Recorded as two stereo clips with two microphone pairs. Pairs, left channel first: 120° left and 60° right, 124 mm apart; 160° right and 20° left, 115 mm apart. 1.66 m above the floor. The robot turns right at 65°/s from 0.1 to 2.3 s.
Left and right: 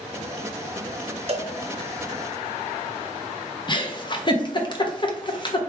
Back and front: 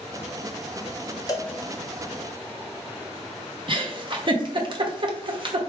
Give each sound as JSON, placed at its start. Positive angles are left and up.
{"t": 1.3, "sound": "a cowbell", "azimuth_deg": -100, "distance_m": 0.6}
{"t": 3.7, "sound": "a giggle", "azimuth_deg": 65, "distance_m": 0.7}